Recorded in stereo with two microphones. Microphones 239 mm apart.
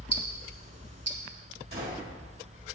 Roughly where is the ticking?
Right.